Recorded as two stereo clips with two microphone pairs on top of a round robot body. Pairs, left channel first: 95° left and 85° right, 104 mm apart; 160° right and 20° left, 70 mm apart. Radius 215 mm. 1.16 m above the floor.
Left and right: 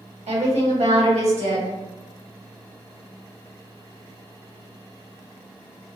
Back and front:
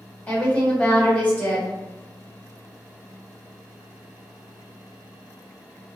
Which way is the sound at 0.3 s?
90° right.